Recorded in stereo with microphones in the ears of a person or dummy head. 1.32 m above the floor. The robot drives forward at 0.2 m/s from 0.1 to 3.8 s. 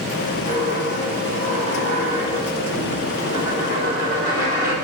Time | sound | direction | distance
0.5 | a dropped coin | 50° right (ahead or behind) | 1.2 m